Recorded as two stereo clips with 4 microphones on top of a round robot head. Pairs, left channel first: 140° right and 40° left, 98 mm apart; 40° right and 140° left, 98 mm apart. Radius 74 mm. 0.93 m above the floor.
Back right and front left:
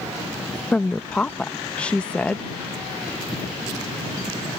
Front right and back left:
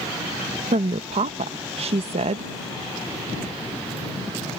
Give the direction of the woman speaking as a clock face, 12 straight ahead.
7 o'clock.